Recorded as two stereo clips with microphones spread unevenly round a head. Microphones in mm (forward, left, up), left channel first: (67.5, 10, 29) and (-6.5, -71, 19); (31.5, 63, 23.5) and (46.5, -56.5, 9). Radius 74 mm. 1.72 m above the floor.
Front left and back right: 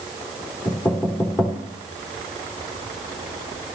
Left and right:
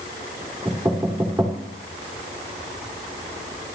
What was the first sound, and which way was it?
Knocking, 5° right.